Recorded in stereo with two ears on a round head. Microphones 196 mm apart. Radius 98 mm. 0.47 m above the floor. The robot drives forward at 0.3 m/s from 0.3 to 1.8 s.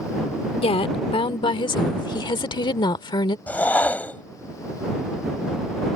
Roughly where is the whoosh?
Centre.